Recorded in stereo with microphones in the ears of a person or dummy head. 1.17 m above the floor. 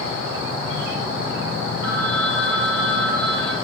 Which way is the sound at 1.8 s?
80° left.